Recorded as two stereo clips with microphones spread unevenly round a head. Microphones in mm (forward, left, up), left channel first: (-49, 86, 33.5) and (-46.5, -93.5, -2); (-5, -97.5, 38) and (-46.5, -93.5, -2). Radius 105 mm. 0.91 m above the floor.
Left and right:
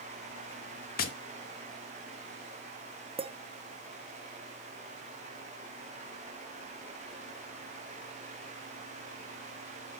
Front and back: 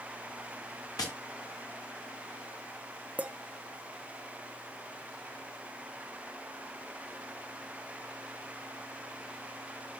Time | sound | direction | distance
1.0 | tapping | 45° left | 1.0 m
3.2 | a clink | 145° right | 1.0 m